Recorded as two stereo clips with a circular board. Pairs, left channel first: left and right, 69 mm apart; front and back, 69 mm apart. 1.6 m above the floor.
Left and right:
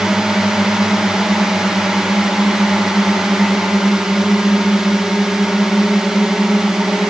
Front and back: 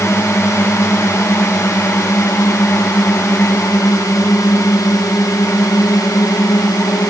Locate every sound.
0.0 s a drone: 15° right; by 7.1 s 10° right